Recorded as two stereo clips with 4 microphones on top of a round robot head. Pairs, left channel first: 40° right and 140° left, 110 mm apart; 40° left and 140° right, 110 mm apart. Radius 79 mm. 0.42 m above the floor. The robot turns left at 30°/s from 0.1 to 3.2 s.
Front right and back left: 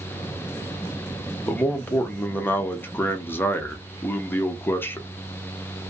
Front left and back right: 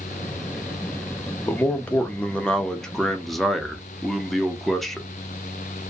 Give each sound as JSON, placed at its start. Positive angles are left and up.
{"t": 1.5, "sound": "a man speaking", "azimuth_deg": 5, "distance_m": 0.8}